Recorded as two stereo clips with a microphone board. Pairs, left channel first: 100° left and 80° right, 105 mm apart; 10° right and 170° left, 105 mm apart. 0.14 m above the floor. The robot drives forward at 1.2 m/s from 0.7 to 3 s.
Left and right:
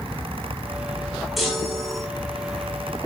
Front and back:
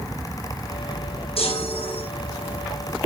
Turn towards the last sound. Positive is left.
turn(degrees=20)